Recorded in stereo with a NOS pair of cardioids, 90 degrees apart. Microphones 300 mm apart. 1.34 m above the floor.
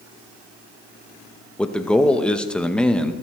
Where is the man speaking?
5° left, 1.0 m.